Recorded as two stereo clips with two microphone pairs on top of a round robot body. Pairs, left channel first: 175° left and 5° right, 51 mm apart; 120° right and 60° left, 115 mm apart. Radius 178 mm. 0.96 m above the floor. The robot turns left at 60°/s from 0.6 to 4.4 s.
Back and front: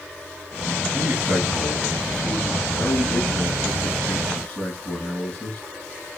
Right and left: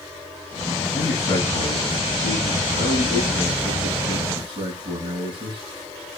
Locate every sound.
0.9 s a man speaking: 45° right, 9 m; by 5.6 s 110° left, 9 m